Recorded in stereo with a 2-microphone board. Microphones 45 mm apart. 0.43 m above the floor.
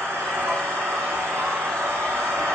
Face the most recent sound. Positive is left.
turn(degrees=-80)